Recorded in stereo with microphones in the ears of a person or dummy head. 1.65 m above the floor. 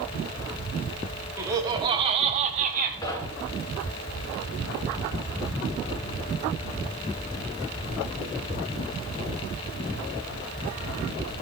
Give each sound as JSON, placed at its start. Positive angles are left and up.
{"t": 1.4, "sound": "laughter", "side_deg": -15, "distance_m": 1.8}
{"t": 3.0, "sound": "knocking", "side_deg": 20, "distance_m": 1.4}